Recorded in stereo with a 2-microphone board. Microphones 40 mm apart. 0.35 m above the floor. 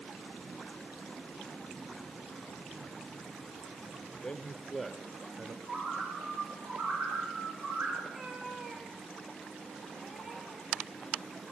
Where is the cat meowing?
20° right (ahead or behind), 3 m.